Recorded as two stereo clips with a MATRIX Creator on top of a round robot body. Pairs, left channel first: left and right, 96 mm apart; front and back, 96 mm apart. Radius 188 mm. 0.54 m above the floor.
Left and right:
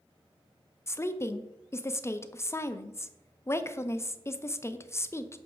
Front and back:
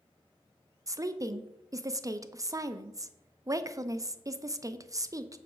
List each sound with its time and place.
0.9 s a woman speaking: 140° left, 0.7 m